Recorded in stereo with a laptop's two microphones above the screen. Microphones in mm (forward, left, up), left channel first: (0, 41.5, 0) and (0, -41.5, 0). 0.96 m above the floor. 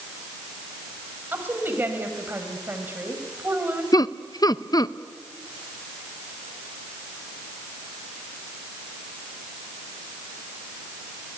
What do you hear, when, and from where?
1.3 s a woman speaking: 25° right (ahead or behind), 5 m
3.9 s laughter: 50° left (ahead or behind), 0.6 m